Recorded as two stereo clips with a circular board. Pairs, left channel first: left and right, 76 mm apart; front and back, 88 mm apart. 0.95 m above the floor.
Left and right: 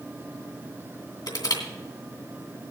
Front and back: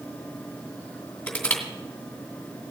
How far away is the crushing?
About 2.5 m.